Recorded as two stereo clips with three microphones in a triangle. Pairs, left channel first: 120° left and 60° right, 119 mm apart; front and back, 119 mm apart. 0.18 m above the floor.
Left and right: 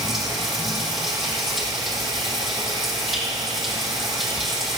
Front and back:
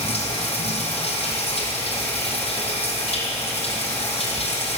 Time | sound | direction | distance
0.0 | running water | 30° left | 2.5 m